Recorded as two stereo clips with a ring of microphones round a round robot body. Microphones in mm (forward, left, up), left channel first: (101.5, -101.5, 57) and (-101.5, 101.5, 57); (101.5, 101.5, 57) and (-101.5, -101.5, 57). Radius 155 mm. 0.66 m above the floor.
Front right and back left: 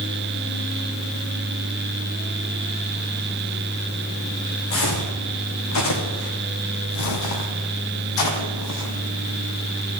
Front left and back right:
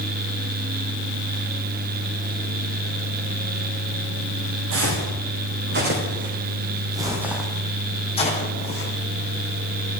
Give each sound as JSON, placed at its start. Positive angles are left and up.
{"t": 4.7, "sound": "footsteps", "azimuth_deg": -90, "distance_m": 3.0}